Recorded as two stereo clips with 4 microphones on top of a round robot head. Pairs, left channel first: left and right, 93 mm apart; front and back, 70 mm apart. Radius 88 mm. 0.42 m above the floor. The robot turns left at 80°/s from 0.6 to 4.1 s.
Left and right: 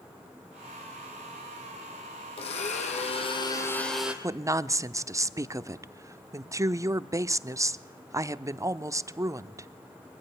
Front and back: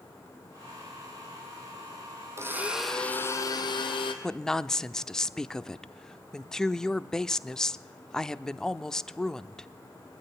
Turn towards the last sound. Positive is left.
turn(degrees=-75)